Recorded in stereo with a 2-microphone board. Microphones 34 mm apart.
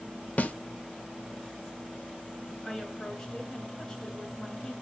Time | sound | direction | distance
0.4 | a snare drum | 50° left (ahead or behind) | 0.8 m
2.6 | a woman speaking | 20° left (ahead or behind) | 2.5 m